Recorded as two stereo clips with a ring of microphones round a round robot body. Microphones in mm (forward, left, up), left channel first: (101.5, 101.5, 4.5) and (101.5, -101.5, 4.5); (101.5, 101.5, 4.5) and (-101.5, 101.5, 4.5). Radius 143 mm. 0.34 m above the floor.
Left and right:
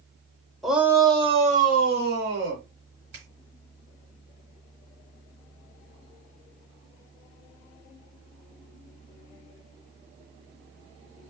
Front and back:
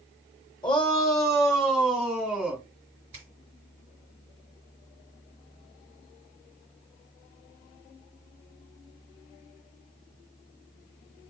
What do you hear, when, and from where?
0.6 s a shout: straight ahead, 0.9 m; by 2.6 s 90° right, 1.5 m
3.1 s a finger snap: 135° right, 2 m